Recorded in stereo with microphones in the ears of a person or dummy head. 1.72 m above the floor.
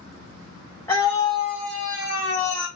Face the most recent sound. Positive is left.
turn(degrees=65)  # may be behind; listen again after turning